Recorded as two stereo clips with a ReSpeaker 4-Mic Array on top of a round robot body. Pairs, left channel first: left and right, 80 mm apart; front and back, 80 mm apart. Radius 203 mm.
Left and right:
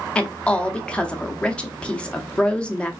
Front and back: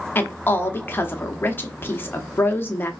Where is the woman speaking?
30° left, 1.0 m.